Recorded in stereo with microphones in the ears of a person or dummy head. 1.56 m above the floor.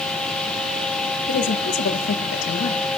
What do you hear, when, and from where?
1.3 s a woman speaking: 65° left (ahead or behind), 1.6 m